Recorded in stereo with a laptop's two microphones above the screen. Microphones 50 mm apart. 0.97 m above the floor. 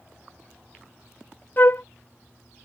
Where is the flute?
45° left (ahead or behind).